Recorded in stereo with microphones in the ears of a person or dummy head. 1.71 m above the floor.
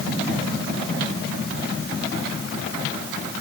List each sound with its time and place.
Only background noise.